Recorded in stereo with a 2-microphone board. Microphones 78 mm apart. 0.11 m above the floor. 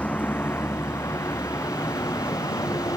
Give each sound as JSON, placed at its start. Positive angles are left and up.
{"t": 0.0, "sound": "a vehicle", "side_deg": 15}